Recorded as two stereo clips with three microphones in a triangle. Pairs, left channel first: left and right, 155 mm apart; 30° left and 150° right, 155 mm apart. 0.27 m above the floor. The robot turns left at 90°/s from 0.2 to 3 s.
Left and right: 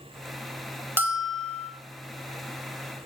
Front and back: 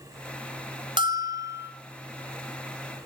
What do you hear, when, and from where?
1.0 s a bell: 155° right, 1.3 m; by 1.7 s 140° left, 1.3 m